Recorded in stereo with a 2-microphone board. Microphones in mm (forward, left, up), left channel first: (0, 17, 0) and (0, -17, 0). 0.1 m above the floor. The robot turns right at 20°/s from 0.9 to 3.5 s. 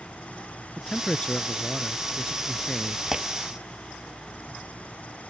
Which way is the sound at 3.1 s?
15° right (ahead or behind).